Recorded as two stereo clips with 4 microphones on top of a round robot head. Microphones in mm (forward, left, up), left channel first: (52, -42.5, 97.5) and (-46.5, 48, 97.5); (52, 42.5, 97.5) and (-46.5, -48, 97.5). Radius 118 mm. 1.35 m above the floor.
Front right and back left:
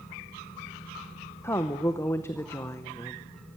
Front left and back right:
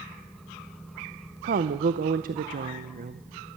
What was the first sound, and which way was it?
A woman speaking, 115° right.